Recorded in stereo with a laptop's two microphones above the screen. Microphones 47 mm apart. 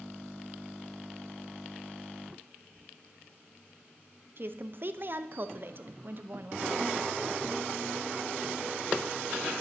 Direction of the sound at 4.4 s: 45° right (ahead or behind).